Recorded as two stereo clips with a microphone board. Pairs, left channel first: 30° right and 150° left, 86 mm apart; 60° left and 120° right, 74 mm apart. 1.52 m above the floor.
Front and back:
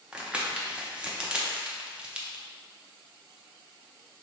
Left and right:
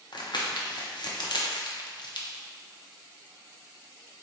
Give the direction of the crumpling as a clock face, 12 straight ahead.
10 o'clock.